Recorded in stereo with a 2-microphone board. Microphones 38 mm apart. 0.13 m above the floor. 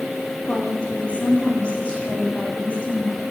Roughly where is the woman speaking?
Left.